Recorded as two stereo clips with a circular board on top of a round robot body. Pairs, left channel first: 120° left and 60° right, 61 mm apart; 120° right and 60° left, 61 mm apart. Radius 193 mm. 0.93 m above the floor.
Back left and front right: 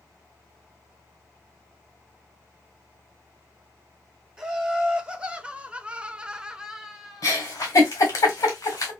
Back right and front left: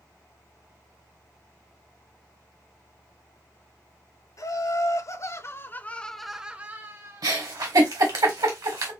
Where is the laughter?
135° right, 1.4 m; by 7.3 s 25° left, 1.1 m.